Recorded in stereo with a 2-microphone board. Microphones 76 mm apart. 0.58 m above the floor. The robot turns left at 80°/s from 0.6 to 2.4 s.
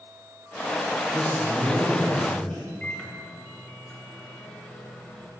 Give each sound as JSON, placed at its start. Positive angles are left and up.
{"t": 1.1, "sound": "a man speaking", "azimuth_deg": -105, "distance_m": 2.5}
{"t": 2.8, "sound": "a microwave", "side_deg": 20, "distance_m": 1.8}